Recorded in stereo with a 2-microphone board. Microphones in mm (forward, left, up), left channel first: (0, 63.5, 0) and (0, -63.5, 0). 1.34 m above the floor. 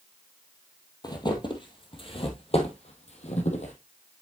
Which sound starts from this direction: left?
Footsteps, at 1.0 s.